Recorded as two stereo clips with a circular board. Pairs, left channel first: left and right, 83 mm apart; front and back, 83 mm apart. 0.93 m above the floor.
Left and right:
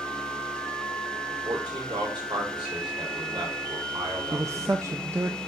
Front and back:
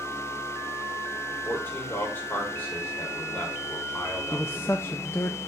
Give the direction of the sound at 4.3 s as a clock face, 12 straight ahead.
2 o'clock.